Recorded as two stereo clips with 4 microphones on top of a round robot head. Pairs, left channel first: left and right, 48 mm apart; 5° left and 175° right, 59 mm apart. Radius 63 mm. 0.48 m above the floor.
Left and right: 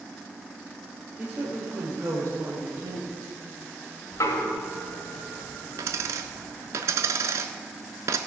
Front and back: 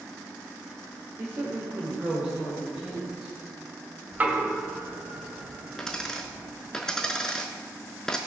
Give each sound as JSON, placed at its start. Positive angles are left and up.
{"t": 1.2, "sound": "a woman speaking", "azimuth_deg": -140, "distance_m": 2.0}
{"t": 4.1, "sound": "knocking", "azimuth_deg": 120, "distance_m": 1.8}
{"t": 5.8, "sound": "a dropped coin", "azimuth_deg": -80, "distance_m": 0.6}